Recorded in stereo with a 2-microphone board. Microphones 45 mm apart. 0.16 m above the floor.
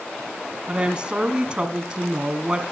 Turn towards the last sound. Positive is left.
turn(degrees=-25)  # may be behind; listen again after turning